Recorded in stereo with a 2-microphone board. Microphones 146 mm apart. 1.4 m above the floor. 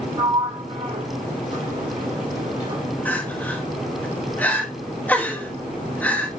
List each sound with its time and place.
0.2 s a sliding door: 55° right (ahead or behind), 2.5 m
3.0 s crying: 10° left (ahead or behind), 2 m